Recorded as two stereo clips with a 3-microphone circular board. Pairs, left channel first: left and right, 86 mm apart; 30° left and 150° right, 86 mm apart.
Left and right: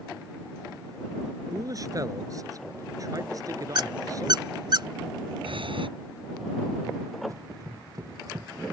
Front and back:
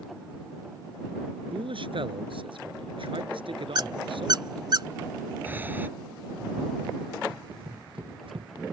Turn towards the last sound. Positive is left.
turn(degrees=-140)